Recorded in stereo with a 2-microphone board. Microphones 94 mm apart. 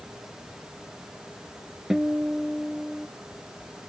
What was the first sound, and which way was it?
A guitar, 5° right (ahead or behind).